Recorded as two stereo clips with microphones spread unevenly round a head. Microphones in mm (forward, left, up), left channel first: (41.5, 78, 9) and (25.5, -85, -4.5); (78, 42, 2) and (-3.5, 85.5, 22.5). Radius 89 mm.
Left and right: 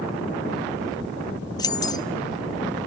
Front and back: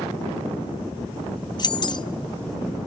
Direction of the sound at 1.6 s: 15° left.